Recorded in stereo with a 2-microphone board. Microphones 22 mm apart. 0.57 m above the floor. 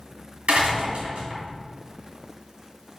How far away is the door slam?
About 3 m.